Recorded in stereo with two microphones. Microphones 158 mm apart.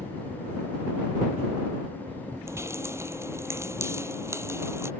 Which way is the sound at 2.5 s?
15° right (ahead or behind).